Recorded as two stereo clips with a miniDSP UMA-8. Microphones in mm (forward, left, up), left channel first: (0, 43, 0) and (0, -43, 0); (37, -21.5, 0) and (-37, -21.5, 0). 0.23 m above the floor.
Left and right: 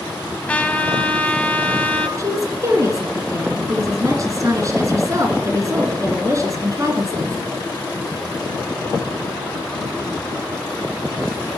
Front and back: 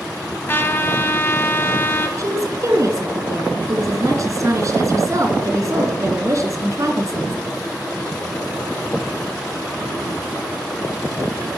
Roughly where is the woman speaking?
Behind right.